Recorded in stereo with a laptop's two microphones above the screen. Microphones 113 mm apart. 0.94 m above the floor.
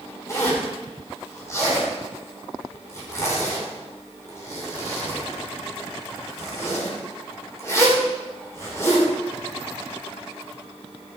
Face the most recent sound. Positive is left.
turn(degrees=25)  # may be behind; listen again after turning